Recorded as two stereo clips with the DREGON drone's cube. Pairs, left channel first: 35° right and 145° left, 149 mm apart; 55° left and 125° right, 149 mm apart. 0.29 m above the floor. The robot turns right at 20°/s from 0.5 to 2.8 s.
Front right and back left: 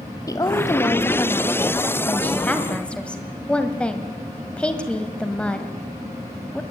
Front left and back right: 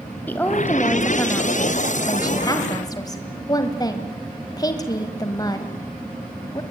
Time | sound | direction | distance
0.3 | a woman speaking | 5° right | 1.6 m